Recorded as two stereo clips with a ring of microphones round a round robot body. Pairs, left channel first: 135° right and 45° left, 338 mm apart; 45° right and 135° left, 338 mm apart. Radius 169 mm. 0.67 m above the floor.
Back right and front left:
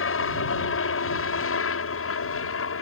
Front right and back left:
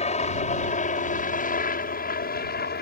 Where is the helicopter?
105° right; by 2.8 s 100° right.